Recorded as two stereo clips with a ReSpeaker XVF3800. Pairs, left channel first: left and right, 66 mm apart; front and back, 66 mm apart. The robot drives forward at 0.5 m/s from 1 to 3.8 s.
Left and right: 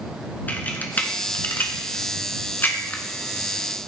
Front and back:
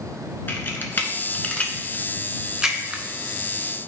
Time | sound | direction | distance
0.5 | a camera shutter | 40° left | 1.2 m